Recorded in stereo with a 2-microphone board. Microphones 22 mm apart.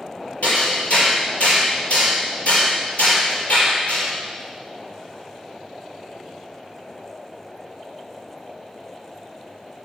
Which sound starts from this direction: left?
Hammering, at 0.4 s.